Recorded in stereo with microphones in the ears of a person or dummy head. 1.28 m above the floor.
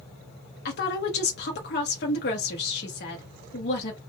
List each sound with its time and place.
0.7 s a woman speaking: 50° left (ahead or behind), 0.7 m